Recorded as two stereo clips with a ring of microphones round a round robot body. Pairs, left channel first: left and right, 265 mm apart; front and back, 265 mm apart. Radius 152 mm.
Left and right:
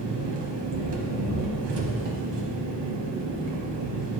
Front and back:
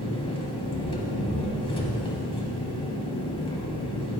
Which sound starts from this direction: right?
An engine running, at 0.0 s.